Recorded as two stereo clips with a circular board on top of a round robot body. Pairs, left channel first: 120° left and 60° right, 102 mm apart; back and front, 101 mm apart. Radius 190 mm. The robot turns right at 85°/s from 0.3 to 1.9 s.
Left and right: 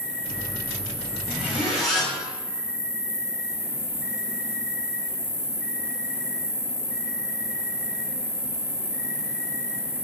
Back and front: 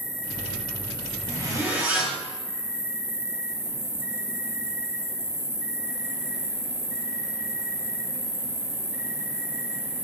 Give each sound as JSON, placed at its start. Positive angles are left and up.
{"t": 0.0, "sound": "an insect", "azimuth_deg": -125, "distance_m": 1.5}
{"t": 1.3, "sound": "a zipper", "azimuth_deg": -10, "distance_m": 1.6}